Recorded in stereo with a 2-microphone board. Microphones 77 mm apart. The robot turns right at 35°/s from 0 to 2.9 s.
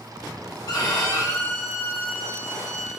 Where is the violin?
100° left, 0.6 m; by 2.9 s straight behind, 0.6 m.